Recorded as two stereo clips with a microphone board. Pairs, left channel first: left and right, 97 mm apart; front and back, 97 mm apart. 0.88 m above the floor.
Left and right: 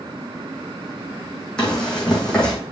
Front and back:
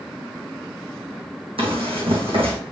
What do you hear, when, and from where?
1.6 s running footsteps: 175° left, 3 m